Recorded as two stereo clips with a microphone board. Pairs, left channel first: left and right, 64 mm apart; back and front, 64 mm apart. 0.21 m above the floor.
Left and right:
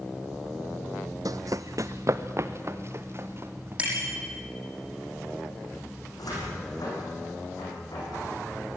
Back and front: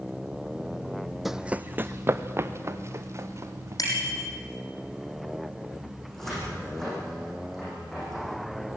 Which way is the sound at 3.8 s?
160° right.